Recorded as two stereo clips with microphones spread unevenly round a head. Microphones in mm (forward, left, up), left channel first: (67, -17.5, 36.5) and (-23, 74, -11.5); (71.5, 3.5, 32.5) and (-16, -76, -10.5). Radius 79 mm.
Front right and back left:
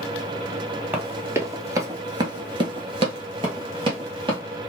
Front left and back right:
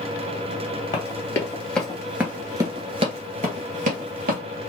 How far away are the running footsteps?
About 1.6 m.